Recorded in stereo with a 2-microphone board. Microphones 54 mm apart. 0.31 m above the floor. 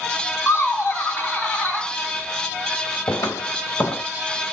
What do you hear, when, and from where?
0.5 s laughter: 45° left (ahead or behind), 2 m; by 1.9 s 20° left (ahead or behind), 2 m
3.1 s footsteps: 85° left, 2 m